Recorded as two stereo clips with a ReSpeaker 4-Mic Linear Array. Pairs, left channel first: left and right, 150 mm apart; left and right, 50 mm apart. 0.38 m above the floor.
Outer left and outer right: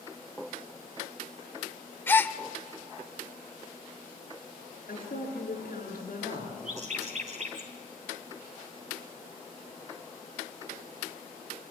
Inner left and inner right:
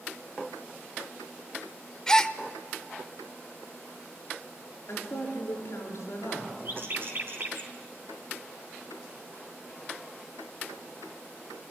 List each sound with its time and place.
2.1 s a gasp: 15° left (ahead or behind), 0.6 m
4.9 s a woman speaking: 65° left (ahead or behind), 6 m
6.7 s a bird: 50° right (ahead or behind), 2.5 m